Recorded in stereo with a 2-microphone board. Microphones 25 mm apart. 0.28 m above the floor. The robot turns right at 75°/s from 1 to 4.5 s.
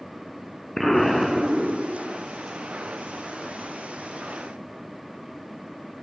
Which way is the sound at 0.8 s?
165° left.